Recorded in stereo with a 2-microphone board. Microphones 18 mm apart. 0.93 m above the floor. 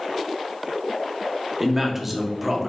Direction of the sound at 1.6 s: 15° right (ahead or behind).